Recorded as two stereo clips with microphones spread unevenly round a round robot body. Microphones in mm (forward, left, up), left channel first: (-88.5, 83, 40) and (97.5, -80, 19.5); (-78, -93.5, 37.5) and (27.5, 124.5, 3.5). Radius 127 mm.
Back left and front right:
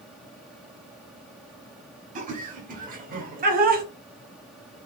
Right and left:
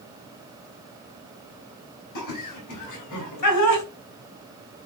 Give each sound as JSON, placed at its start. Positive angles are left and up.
{"t": 2.1, "sound": "laughter", "azimuth_deg": -100, "distance_m": 4.5}